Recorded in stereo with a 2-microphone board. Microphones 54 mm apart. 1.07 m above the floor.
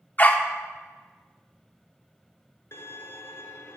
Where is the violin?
50° left (ahead or behind), 1.2 m.